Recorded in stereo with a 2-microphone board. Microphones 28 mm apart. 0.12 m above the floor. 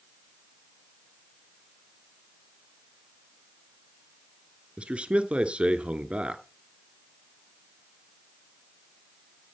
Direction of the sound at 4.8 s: 40° right (ahead or behind).